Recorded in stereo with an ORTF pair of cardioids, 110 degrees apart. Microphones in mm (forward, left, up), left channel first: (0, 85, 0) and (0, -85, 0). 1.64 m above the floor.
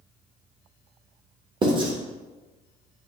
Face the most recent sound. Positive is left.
turn(degrees=-30)